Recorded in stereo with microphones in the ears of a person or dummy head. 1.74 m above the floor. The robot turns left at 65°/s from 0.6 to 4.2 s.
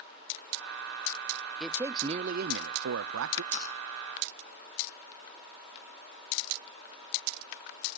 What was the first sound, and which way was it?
A man speaking, straight ahead.